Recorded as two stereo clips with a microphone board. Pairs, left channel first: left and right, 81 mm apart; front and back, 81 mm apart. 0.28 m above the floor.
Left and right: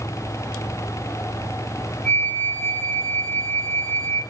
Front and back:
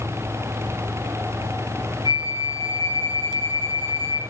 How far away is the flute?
About 7.5 m.